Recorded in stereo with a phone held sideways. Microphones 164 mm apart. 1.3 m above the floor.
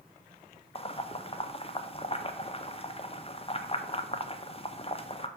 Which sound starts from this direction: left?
Boiling, at 0.8 s.